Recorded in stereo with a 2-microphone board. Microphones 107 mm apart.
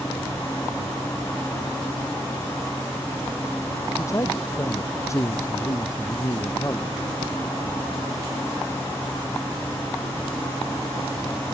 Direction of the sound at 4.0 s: 30° left (ahead or behind).